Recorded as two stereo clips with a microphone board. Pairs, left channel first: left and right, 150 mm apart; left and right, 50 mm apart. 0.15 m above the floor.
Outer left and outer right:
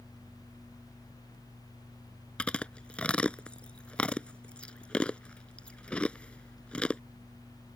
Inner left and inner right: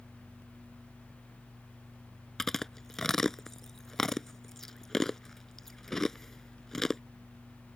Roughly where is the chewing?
Centre.